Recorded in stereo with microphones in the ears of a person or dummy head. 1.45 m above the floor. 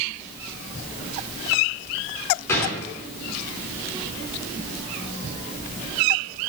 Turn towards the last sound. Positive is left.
turn(degrees=15)  # may be behind; listen again after turning